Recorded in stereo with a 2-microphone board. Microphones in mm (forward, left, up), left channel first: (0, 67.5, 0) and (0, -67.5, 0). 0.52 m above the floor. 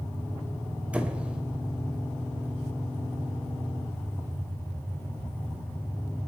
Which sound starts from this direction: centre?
A squeak, at 0.9 s.